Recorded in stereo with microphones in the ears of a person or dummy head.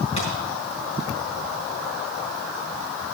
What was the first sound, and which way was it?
A thud, 45° left (ahead or behind).